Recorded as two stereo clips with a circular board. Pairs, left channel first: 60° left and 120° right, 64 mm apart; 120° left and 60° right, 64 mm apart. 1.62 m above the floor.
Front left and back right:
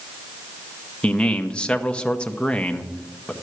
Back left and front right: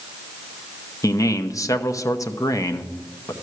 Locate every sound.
1.0 s a man speaking: 135° left, 0.8 m